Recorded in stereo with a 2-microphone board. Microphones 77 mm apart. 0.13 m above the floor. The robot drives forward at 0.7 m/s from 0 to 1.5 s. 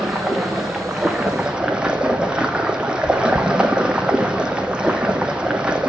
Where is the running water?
5° right (ahead or behind), 2 m; by 5.9 s 15° right (ahead or behind), 1.2 m.